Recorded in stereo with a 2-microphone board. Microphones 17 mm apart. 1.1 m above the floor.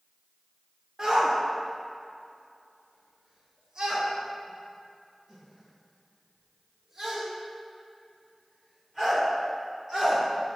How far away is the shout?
About 1.1 m.